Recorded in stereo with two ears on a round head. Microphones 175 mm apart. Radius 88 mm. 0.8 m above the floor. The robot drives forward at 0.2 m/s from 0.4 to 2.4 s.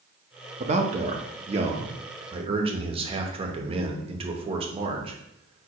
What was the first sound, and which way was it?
A man speaking, 35° right (ahead or behind).